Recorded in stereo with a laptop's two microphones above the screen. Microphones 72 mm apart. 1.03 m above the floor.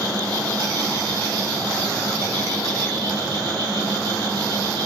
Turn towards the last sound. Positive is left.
turn(degrees=-75)  # may be behind; listen again after turning